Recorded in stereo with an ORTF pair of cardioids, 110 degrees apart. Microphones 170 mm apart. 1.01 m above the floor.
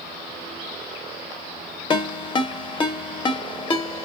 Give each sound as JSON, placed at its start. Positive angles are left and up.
{"t": 1.9, "sound": "a ringtone", "azimuth_deg": 25, "distance_m": 0.6}